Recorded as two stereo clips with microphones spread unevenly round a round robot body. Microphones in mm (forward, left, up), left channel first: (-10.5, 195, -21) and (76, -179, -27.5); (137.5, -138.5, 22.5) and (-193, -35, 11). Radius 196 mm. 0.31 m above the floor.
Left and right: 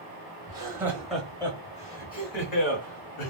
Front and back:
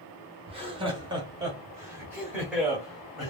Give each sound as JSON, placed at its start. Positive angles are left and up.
{"t": 0.5, "sound": "laughter", "azimuth_deg": -145, "distance_m": 1.3}